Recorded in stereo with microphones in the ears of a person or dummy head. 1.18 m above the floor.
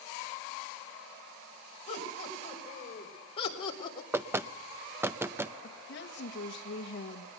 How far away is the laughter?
About 6 m.